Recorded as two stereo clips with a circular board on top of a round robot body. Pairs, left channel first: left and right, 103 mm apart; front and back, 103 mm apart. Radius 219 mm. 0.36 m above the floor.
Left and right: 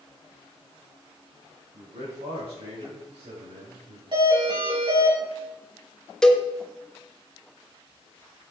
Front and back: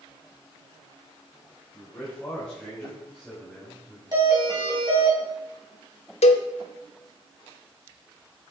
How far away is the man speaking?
About 4 m.